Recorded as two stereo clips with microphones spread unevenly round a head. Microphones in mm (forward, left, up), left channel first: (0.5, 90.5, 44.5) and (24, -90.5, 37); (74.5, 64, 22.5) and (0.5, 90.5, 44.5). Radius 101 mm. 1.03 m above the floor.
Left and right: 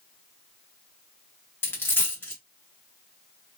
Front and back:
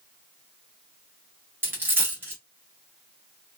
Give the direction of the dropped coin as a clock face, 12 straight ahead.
6 o'clock.